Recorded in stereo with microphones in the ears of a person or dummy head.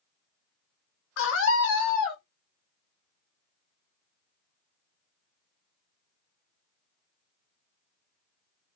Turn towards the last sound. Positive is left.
turn(degrees=55)  # may be behind; listen again after turning